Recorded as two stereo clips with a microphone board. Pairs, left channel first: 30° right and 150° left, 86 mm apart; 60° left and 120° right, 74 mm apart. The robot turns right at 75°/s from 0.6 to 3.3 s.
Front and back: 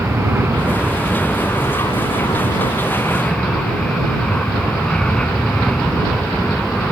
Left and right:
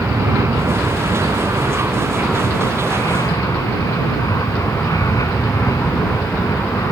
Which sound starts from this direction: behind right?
An aircraft, at 0.0 s.